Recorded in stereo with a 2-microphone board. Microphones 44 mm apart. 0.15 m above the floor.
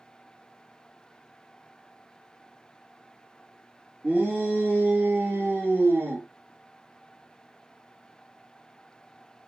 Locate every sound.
4.0 s a shout: 40° right (ahead or behind), 3.5 m; by 6.3 s 50° right (ahead or behind), 3 m